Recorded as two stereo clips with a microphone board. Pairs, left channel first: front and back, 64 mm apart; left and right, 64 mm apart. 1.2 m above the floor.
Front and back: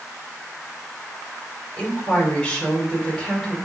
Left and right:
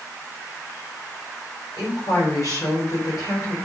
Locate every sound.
1.8 s a woman speaking: 75° left, 4 m